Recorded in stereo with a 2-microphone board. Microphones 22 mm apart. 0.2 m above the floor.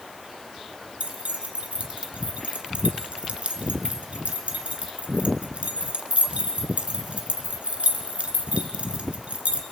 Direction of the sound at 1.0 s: 65° right (ahead or behind).